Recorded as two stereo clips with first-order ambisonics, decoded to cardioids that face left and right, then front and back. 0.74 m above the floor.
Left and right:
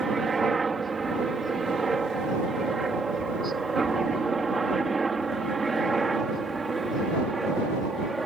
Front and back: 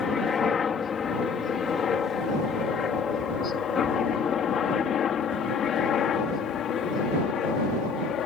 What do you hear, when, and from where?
0.0 s a helicopter: 35° right; by 8.3 s 20° right